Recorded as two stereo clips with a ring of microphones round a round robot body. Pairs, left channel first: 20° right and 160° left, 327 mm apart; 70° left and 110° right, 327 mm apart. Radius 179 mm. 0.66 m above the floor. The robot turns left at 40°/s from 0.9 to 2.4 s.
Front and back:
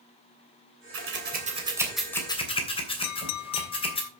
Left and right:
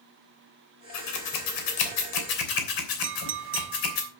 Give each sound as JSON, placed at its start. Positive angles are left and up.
{"t": 0.9, "sound": "scissors", "azimuth_deg": 110, "distance_m": 3.0}
{"t": 3.0, "sound": "a clink", "azimuth_deg": -60, "distance_m": 0.9}